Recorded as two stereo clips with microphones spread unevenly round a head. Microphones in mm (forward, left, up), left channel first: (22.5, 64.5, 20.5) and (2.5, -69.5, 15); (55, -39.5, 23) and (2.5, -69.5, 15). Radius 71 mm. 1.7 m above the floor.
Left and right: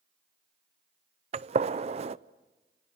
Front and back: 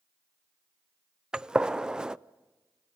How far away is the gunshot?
About 0.5 m.